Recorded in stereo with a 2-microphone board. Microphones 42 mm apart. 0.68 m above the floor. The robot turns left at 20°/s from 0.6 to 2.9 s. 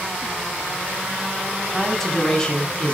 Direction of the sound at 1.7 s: Centre (ahead or behind).